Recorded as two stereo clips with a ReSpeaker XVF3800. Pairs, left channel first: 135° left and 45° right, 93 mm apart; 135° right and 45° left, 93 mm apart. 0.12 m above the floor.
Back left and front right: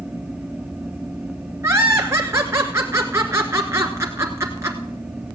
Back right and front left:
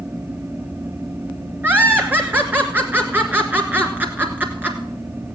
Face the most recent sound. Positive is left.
turn(degrees=-10)